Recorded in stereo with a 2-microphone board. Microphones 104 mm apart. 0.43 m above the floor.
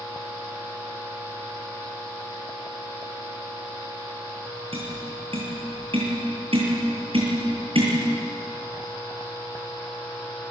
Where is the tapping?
65° right (ahead or behind), 8.5 m.